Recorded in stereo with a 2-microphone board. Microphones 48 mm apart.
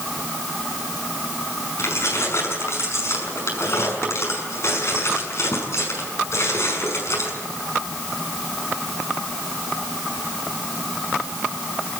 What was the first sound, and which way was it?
Keys jangling, 60° left (ahead or behind).